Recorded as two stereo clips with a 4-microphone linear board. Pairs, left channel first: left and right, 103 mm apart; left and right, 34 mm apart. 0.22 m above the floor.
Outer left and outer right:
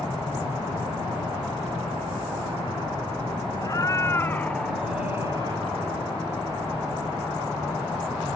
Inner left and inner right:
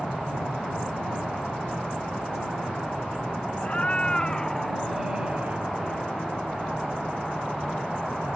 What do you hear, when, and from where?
3.6 s a cat meowing: 35° left (ahead or behind); by 5.7 s 45° right (ahead or behind)